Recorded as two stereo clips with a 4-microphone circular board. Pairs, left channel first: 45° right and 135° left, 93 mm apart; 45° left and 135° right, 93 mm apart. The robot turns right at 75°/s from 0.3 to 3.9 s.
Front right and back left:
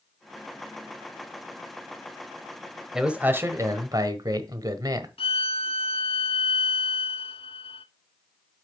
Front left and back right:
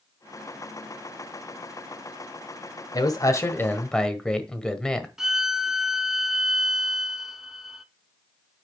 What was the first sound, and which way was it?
A man speaking, 50° left.